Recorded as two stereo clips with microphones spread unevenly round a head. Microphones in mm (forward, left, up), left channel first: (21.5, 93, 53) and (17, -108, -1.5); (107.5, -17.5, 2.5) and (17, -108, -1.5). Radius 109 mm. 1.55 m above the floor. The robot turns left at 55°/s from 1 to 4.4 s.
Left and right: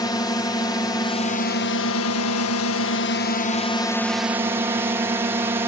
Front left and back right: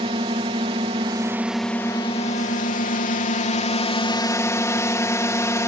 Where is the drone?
165° left; by 5.7 s 20° right.